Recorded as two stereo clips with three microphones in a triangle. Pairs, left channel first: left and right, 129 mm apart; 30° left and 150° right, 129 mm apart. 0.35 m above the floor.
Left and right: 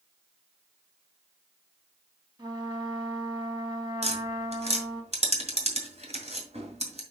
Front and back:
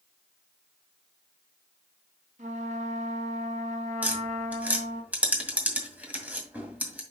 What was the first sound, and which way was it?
A trumpet, 140° right.